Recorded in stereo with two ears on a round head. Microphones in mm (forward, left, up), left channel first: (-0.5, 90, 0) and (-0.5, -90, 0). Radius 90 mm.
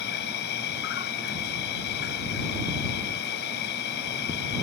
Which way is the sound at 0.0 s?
60° left (ahead or behind).